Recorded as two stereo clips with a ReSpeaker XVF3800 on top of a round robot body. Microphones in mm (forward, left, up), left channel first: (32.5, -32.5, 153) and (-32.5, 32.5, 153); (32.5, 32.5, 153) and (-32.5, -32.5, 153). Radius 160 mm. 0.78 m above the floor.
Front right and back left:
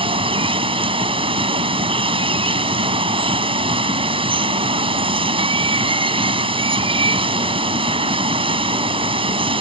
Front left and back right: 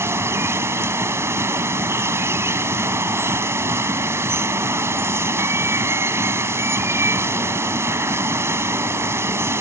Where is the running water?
160° left.